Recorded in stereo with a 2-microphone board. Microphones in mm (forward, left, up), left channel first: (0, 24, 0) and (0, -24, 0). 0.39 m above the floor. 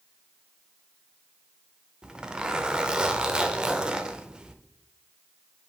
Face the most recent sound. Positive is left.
turn(degrees=-15)  # may be behind; listen again after turning